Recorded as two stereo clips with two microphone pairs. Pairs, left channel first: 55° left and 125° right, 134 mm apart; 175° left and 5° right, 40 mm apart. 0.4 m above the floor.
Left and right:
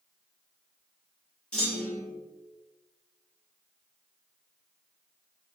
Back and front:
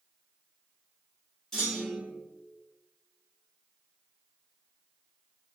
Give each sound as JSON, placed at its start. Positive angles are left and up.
{"t": 1.5, "sound": "a clunk", "azimuth_deg": 125, "distance_m": 1.4}